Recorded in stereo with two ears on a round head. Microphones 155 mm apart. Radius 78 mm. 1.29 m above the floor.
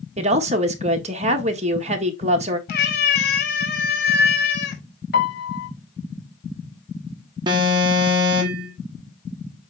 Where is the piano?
65° left (ahead or behind), 1.6 m.